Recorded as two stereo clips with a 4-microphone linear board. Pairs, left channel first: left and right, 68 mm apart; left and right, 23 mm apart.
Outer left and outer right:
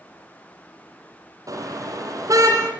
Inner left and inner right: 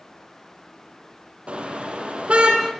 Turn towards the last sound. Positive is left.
turn(degrees=-55)  # may be behind; listen again after turning